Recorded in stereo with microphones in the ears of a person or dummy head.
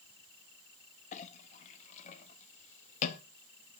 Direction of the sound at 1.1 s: 40° left (ahead or behind).